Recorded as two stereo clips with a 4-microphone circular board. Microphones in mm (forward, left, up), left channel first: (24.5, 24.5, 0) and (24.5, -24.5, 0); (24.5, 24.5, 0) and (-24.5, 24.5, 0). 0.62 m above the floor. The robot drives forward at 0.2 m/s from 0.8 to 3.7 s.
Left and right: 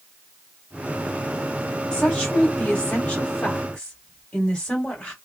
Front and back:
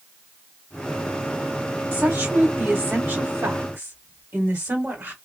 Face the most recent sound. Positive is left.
turn(degrees=155)